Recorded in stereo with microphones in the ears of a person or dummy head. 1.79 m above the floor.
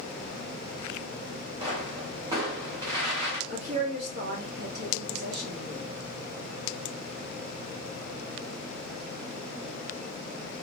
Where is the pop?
35° right (ahead or behind), 1.0 m.